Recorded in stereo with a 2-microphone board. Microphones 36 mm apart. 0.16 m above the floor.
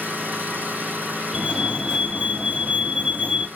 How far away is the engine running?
About 1.8 m.